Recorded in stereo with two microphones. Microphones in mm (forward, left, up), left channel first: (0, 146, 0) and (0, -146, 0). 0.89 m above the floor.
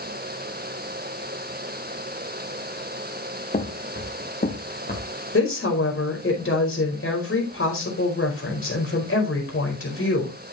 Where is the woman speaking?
45° left (ahead or behind), 4.5 m.